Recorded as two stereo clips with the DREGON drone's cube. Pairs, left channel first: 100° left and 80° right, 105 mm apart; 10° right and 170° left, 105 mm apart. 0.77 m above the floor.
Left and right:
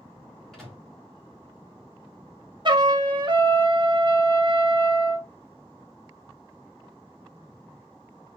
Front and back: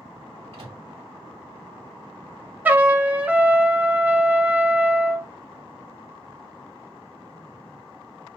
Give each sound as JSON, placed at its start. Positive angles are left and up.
{"t": 0.5, "sound": "a microwave", "azimuth_deg": -175, "distance_m": 2.0}
{"t": 2.6, "sound": "a trumpet", "azimuth_deg": -115, "distance_m": 0.6}